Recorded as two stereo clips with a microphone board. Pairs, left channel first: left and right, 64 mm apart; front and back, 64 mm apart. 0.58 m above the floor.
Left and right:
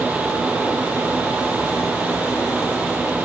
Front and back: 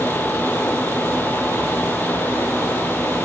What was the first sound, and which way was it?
Only background noise.